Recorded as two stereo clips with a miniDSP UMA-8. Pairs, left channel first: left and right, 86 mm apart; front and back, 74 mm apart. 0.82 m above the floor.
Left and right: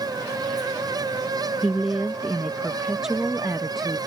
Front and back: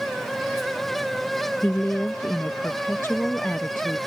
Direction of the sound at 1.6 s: 10° right.